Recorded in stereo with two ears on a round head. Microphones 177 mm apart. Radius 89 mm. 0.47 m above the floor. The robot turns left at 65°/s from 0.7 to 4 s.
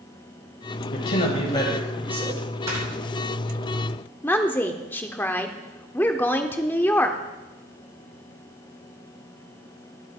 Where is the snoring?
15° right (ahead or behind), 6.5 m; by 2.9 s 5° right (ahead or behind), 6.5 m.